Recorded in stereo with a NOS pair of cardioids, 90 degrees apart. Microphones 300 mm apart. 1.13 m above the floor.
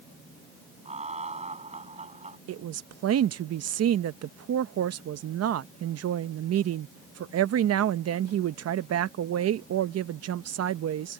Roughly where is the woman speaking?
Ahead right.